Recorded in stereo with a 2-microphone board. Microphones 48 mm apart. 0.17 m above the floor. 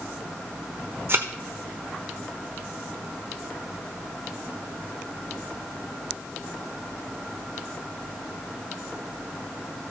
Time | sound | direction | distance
1.1 | a thud | 45° right (ahead or behind) | 1.1 m